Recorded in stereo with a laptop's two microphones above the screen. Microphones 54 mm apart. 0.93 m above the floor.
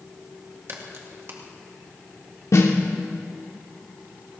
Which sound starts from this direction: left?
A snare drum, at 2.5 s.